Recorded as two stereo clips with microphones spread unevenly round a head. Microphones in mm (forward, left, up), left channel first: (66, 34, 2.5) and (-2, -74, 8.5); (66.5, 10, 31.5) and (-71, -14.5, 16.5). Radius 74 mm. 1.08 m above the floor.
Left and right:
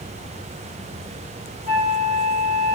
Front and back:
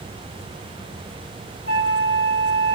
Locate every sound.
1.7 s a flute: 165° right, 2 m